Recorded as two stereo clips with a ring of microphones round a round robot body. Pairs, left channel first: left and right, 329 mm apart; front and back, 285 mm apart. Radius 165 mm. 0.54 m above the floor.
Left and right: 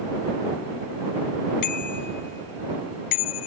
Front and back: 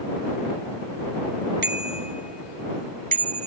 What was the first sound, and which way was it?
A bicycle bell, 125° left.